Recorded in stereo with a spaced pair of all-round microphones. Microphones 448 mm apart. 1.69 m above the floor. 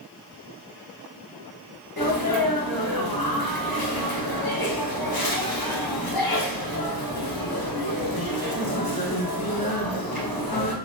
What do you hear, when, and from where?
2.0 s a sneeze: 55° left (ahead or behind), 1.0 m